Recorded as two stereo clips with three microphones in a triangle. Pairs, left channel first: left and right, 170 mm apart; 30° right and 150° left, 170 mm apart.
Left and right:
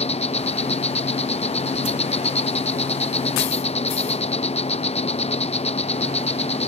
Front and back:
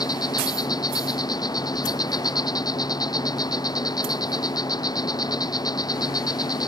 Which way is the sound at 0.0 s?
35° left.